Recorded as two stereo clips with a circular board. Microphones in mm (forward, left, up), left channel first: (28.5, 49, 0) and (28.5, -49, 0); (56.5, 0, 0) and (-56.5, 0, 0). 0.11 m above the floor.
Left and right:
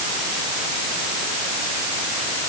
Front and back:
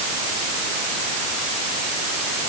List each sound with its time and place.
Only background noise.